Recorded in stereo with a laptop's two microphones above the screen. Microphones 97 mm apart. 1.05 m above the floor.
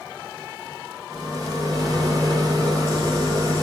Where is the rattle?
40° right (ahead or behind), 0.8 m.